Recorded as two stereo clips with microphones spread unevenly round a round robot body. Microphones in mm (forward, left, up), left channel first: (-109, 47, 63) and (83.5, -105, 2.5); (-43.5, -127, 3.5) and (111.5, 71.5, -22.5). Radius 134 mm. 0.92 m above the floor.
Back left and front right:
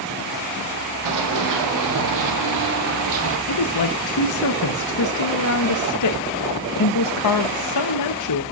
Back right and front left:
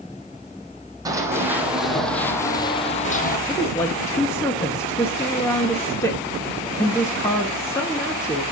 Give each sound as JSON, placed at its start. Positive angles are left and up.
{"t": 1.1, "sound": "running footsteps", "azimuth_deg": -25, "distance_m": 3.0}
{"t": 3.5, "sound": "a woman speaking", "azimuth_deg": 150, "distance_m": 0.9}